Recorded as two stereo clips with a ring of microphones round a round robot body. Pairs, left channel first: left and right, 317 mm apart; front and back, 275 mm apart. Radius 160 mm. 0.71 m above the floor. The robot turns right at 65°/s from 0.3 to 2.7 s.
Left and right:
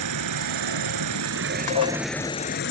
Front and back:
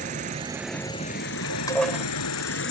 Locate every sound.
0.0 s an insect: 115° right; by 2.7 s 40° left
1.7 s dishes clattering: 75° left; by 2.0 s 100° left